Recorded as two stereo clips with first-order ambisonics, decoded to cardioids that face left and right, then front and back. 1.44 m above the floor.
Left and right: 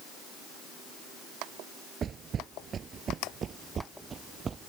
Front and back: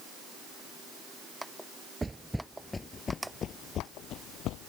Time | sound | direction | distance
2.0 | footsteps | 105° right | ?